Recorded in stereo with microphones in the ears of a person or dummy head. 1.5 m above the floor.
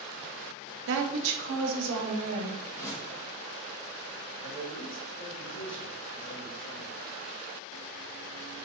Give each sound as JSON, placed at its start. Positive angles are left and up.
{"t": 0.9, "sound": "a woman speaking", "side_deg": -65, "distance_m": 0.7}
{"t": 2.6, "sound": "a whoosh", "side_deg": 20, "distance_m": 1.1}
{"t": 4.4, "sound": "a man speaking", "side_deg": 60, "distance_m": 1.6}